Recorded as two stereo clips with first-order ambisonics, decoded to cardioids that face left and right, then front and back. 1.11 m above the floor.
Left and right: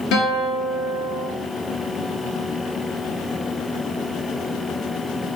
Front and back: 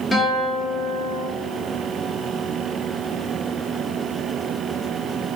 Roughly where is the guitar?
Left.